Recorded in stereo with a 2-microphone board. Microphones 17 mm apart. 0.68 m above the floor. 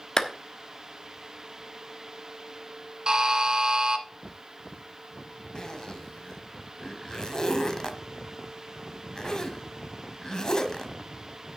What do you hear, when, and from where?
0.2 s a clap: 45° left (ahead or behind), 1.1 m
3.1 s a buzzer: 45° right (ahead or behind), 1.2 m
5.5 s a zipper: 45° left (ahead or behind), 1.3 m